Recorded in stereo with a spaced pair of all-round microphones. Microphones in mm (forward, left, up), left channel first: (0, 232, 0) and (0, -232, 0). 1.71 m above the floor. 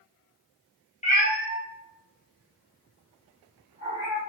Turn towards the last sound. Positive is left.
turn(degrees=65)  # may be behind; listen again after turning